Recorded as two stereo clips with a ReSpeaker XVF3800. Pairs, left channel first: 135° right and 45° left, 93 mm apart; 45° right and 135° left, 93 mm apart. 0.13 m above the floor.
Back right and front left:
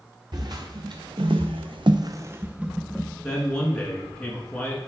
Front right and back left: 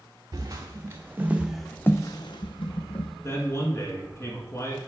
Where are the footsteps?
85° left, 1.4 m; by 3.1 s 45° right, 1.2 m.